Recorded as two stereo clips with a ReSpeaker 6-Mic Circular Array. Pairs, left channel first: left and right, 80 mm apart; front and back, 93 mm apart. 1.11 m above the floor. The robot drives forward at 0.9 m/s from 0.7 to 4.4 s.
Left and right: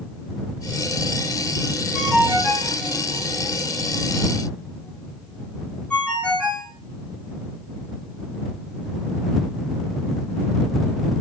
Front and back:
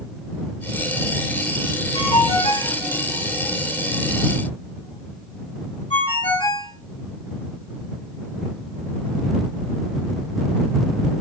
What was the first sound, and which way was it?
A ringtone, 10° left.